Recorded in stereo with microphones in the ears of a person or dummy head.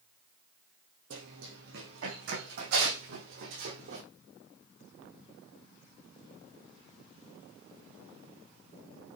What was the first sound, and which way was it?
Running footsteps, 70° right (ahead or behind).